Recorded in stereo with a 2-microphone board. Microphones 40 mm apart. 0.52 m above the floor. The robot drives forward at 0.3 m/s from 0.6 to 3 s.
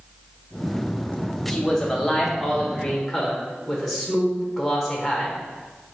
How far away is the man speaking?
About 0.8 m.